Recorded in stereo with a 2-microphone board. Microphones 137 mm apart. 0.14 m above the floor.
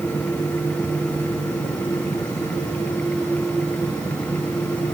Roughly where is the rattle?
No rattle in this recording.